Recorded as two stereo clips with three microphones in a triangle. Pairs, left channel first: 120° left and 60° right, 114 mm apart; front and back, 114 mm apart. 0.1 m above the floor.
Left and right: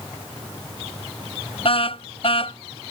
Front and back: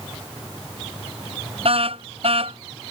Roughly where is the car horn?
Behind left.